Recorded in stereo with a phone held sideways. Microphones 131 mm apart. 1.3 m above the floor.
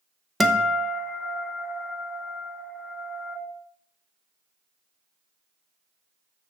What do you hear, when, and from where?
0.4 s a guitar: centre (ahead or behind), 0.9 m